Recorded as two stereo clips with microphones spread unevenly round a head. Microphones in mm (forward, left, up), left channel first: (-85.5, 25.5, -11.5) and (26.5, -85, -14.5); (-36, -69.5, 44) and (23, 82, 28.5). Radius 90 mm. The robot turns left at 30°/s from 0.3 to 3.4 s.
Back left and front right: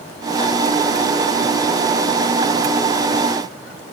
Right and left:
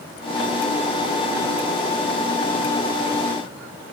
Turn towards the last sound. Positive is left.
No sound to turn to.